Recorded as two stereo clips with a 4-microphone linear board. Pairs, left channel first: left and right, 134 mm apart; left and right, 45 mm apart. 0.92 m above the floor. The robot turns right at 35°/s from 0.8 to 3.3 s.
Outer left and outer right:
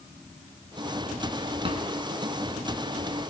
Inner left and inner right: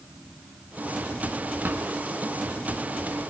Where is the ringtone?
I don't hear a ringtone.